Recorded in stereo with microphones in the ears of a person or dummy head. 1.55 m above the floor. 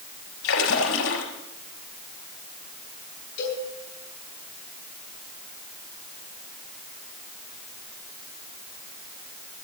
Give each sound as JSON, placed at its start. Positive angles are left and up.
{"t": 0.4, "sound": "a splash", "side_deg": 80, "distance_m": 5.5}
{"t": 3.4, "sound": "a cowbell", "side_deg": 55, "distance_m": 9.5}